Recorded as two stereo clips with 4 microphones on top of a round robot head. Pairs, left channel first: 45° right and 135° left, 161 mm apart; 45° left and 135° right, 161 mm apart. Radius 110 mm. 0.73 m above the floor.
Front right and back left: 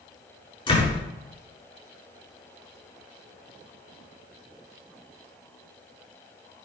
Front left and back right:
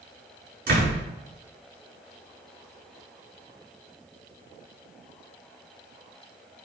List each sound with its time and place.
0.7 s a door slam: 105° right, 7 m